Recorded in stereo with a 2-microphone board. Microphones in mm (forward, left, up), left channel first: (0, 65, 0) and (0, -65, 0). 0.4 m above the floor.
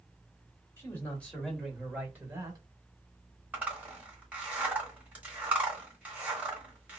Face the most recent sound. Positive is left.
turn(degrees=-10)  # may be behind; listen again after turning